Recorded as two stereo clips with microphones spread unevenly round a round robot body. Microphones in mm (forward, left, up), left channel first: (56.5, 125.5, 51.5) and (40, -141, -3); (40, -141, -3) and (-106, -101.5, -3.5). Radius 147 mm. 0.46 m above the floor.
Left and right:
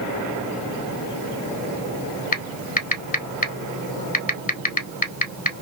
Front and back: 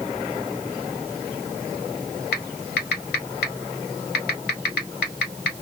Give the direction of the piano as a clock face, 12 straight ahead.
No piano in this recording.